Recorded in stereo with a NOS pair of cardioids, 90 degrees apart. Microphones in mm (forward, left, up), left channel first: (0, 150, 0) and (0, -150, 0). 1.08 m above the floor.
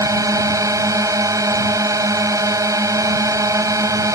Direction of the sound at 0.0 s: 10° right.